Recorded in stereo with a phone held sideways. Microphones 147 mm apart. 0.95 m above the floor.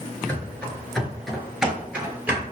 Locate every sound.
0.3 s running footsteps: 10° left (ahead or behind), 0.9 m; by 2.4 s 10° right (ahead or behind), 1.3 m